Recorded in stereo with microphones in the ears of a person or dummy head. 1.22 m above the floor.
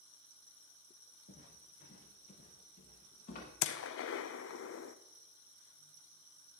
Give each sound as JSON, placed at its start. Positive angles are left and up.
{"t": 1.3, "sound": "footsteps", "side_deg": 60, "distance_m": 4.5}
{"t": 3.6, "sound": "a gunshot", "side_deg": 60, "distance_m": 0.7}